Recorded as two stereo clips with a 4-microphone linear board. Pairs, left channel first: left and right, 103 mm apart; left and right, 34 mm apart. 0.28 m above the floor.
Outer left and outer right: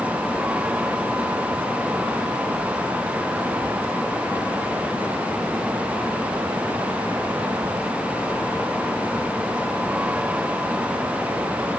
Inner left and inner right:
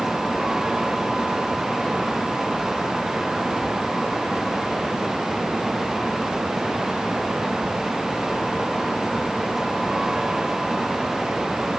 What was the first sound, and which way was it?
Only background noise.